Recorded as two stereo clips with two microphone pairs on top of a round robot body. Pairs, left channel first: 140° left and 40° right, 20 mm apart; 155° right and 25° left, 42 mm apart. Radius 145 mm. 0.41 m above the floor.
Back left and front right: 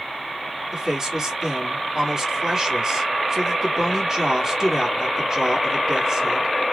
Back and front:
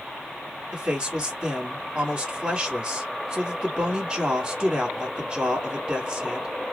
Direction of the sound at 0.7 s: 30° left.